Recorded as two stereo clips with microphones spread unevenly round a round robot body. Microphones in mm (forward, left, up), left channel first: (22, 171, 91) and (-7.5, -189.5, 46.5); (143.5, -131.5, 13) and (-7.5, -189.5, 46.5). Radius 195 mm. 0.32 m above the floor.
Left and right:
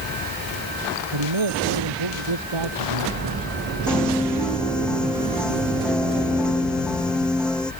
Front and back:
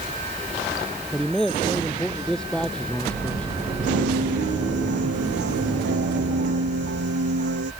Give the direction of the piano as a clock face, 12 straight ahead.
6 o'clock.